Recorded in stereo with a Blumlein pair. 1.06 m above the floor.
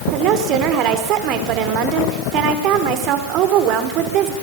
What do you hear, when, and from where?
0.1 s a woman speaking: 35° right, 3 m